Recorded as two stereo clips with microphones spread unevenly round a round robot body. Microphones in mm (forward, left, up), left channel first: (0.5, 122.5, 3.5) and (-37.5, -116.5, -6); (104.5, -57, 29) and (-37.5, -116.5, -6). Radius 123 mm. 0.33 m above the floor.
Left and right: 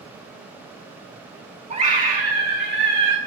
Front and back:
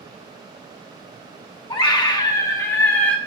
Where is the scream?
35° right, 3 m; by 3.2 s 65° right, 2.5 m.